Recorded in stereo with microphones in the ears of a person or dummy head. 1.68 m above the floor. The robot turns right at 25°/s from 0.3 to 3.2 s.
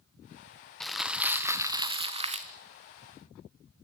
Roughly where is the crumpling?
Behind.